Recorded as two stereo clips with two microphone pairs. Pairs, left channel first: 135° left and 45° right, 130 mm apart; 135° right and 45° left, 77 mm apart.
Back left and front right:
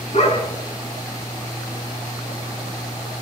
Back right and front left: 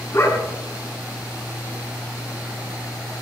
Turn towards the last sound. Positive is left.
turn(degrees=170)